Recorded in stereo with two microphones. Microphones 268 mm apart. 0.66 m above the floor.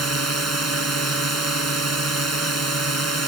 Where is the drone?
80° right.